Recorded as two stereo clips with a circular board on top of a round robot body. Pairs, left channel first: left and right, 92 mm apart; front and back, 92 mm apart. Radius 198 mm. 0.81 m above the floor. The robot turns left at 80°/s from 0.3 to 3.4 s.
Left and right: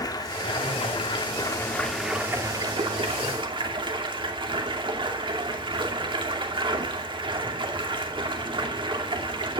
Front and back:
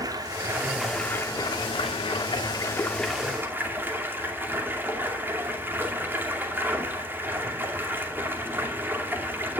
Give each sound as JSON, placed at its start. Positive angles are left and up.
{"t": 0.0, "sound": "running water", "azimuth_deg": 135, "distance_m": 2.5}